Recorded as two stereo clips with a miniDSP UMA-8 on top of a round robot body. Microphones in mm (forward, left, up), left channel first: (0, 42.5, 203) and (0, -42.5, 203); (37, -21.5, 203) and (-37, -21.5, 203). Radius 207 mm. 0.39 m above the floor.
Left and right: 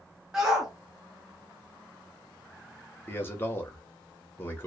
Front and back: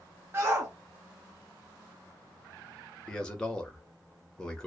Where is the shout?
170° right, 1.0 m.